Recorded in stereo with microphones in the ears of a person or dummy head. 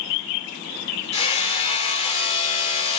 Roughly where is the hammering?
Left.